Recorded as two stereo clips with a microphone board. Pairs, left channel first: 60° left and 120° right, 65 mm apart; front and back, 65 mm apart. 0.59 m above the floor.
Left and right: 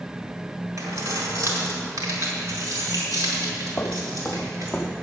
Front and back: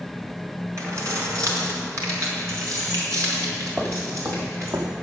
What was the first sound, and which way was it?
Keys jangling, 145° right.